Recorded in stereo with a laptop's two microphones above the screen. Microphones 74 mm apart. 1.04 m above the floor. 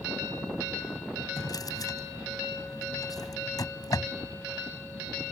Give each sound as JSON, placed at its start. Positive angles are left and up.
{"t": 1.4, "sound": "a drawer", "side_deg": 60}